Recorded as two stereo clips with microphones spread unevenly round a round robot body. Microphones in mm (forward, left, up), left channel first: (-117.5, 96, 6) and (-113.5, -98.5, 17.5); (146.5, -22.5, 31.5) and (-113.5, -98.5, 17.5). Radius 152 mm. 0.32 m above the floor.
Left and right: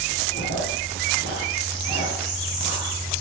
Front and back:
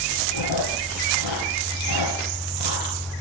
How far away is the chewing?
About 3 m.